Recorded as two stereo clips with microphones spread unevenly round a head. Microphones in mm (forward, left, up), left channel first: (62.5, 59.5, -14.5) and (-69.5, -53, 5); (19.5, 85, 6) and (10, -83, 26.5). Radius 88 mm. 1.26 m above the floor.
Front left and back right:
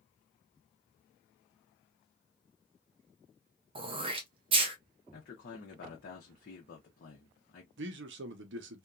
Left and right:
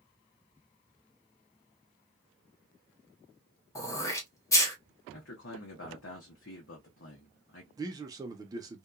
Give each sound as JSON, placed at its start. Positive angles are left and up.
{"t": 3.8, "sound": "throat clearing", "azimuth_deg": 155, "distance_m": 0.7}
{"t": 5.1, "sound": "a man speaking", "azimuth_deg": 80, "distance_m": 0.8}
{"t": 7.8, "sound": "a man speaking", "azimuth_deg": -165, "distance_m": 0.6}